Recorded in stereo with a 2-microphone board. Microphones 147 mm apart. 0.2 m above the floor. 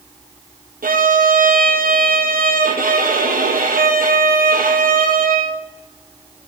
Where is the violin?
80° right, 1.8 m.